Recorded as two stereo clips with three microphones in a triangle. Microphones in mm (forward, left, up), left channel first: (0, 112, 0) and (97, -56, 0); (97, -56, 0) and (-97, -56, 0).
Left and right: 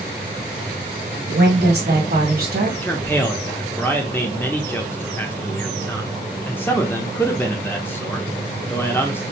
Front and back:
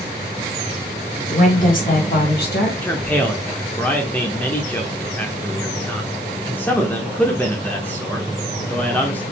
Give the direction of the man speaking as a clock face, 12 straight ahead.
10 o'clock.